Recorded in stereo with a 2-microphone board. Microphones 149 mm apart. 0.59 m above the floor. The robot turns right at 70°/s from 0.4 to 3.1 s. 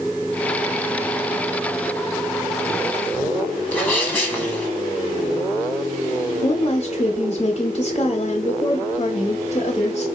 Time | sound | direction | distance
3.7 | a sneeze | 10° left (ahead or behind) | 1.4 m
6.4 | a woman speaking | 45° left (ahead or behind) | 1.0 m